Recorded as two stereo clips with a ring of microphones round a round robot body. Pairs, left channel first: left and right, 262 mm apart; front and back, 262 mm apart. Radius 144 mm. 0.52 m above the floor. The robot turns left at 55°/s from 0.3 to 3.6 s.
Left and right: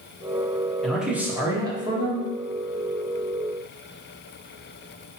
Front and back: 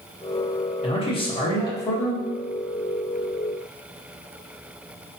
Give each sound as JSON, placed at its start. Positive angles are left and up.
{"t": 0.8, "sound": "a man speaking", "azimuth_deg": 0, "distance_m": 1.2}